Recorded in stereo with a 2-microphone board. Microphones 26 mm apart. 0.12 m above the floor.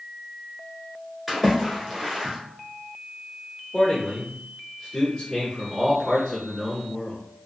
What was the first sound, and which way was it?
A splash, centre (ahead or behind).